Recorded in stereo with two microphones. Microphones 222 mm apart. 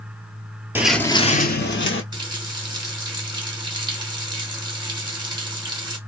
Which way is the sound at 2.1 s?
20° right (ahead or behind).